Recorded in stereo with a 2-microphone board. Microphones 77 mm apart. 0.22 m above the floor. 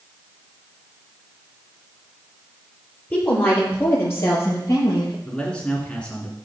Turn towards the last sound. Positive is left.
turn(degrees=10)  # may be behind; listen again after turning